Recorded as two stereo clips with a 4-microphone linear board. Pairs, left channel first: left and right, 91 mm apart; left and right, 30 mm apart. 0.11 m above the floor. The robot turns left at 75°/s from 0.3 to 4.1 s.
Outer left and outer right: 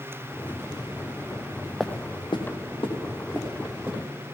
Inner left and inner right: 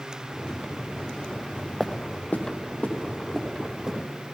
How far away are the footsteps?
About 0.7 m.